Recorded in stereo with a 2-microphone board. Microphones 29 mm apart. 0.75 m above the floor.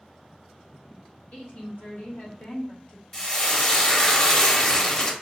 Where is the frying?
25° left (ahead or behind), 0.7 m.